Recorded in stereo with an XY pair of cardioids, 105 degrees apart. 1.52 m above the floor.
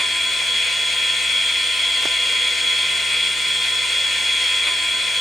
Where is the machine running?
25° left, 6.5 m.